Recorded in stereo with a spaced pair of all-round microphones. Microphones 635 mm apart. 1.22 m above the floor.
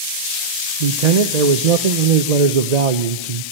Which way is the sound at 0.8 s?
85° right.